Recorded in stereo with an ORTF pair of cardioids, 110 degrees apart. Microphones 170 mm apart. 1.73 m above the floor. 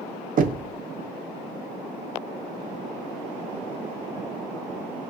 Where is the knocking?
55° right, 1.0 m.